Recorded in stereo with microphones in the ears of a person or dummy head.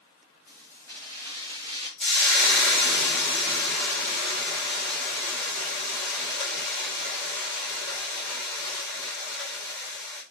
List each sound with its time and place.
0.5 s keys jangling: 5° left (ahead or behind), 3 m; by 1.9 s 30° left (ahead or behind), 4 m
2.0 s frying: 5° left (ahead or behind), 1.5 m